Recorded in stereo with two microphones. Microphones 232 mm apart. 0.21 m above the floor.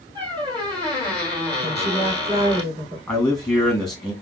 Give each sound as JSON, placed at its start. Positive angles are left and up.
{"t": 0.1, "sound": "a squeak", "side_deg": -20, "distance_m": 2.5}
{"t": 1.6, "sound": "a woman speaking", "side_deg": -25, "distance_m": 2.5}
{"t": 3.1, "sound": "a man speaking", "side_deg": 5, "distance_m": 2.0}